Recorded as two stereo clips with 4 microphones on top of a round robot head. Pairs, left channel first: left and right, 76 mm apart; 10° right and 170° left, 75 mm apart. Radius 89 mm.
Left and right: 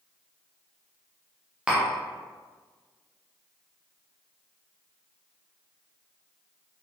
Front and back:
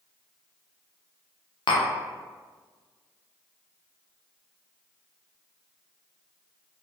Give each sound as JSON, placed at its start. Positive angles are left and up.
{"t": 1.7, "sound": "tapping", "azimuth_deg": -10, "distance_m": 0.6}